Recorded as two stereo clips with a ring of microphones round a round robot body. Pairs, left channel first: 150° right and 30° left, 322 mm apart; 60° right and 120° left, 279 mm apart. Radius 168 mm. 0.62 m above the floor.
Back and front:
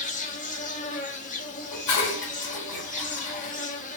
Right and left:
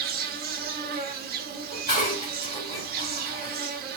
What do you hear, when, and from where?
0.0 s an insect: 155° left, 1.1 m
1.7 s dishes clattering: 125° right, 2.5 m